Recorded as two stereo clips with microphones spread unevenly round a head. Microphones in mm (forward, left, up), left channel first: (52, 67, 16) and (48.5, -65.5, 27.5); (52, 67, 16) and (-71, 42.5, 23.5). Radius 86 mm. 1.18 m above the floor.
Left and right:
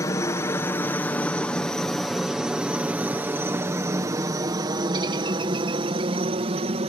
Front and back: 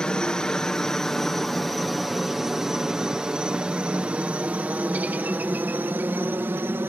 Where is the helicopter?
85° left; by 6.9 s 100° right.